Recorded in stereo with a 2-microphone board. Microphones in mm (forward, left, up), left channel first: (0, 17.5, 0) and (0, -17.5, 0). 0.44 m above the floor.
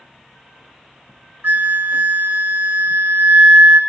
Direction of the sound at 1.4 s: 70° right (ahead or behind).